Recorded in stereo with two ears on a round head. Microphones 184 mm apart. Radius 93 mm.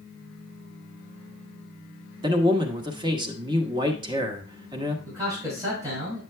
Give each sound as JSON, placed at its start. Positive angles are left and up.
{"t": 2.2, "sound": "a man speaking", "side_deg": -25, "distance_m": 1.2}
{"t": 5.0, "sound": "a man speaking", "side_deg": -15, "distance_m": 6.0}